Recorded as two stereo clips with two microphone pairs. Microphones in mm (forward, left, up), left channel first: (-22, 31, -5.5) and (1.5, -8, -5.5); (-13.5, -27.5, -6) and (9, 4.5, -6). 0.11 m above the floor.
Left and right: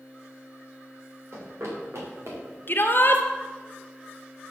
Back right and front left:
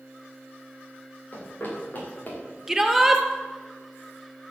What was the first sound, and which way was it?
Running footsteps, 80° right.